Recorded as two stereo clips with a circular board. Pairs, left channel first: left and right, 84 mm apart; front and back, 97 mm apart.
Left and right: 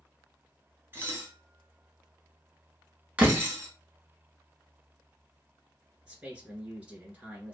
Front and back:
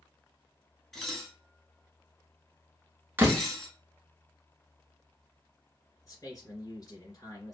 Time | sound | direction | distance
0.9 | dishes clattering | 85° right | 0.9 m
3.2 | a door slam | 140° right | 0.8 m
6.0 | a man speaking | 25° right | 2 m